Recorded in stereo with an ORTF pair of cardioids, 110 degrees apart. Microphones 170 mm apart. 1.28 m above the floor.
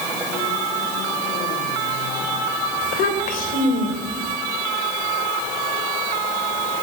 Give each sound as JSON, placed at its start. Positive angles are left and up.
{"t": 2.8, "sound": "a child speaking", "azimuth_deg": 60, "distance_m": 4.0}